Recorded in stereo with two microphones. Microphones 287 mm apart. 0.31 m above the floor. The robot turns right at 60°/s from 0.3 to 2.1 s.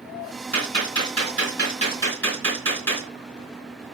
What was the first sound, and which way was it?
A gunshot, 80° left.